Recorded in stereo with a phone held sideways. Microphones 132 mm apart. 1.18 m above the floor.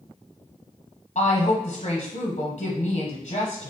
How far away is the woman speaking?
About 0.8 m.